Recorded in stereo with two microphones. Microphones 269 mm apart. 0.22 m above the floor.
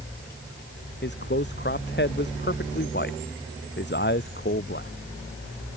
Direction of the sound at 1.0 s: 40° left (ahead or behind).